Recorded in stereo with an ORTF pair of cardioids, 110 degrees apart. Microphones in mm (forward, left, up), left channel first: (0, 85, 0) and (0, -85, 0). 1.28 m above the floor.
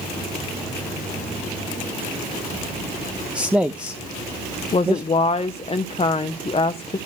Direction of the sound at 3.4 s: 5° right.